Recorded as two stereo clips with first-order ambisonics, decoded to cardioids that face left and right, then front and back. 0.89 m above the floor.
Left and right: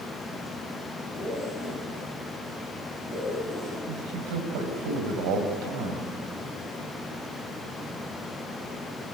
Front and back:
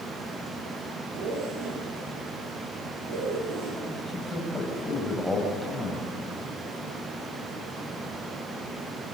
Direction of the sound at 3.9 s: 90° right.